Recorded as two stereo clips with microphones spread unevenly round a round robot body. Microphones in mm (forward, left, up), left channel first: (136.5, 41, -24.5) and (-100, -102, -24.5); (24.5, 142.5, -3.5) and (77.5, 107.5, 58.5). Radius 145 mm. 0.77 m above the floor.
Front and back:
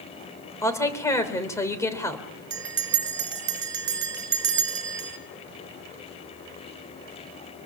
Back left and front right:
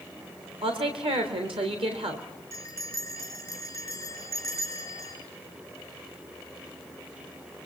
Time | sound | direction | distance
0.6 | a woman speaking | 50° right | 3 m
2.5 | a bell | 105° right | 2.5 m